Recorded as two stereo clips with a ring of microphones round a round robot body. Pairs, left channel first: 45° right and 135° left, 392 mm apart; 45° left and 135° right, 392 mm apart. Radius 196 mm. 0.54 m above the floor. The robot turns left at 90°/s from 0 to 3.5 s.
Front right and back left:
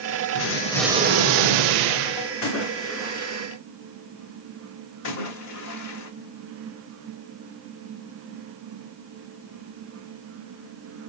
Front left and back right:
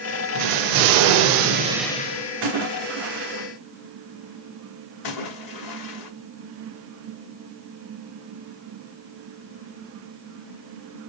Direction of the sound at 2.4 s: 85° right.